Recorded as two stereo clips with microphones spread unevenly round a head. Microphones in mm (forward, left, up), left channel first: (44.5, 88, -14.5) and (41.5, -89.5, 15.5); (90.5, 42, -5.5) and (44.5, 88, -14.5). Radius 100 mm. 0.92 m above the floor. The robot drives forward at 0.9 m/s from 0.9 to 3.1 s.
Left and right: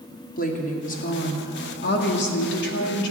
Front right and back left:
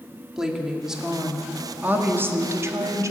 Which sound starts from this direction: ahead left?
A woman speaking, at 0.4 s.